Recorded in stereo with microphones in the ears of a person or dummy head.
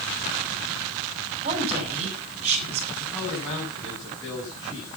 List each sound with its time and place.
1.4 s a woman speaking: 35° right (ahead or behind), 7.5 m
3.0 s a man speaking: 20° left (ahead or behind), 8.5 m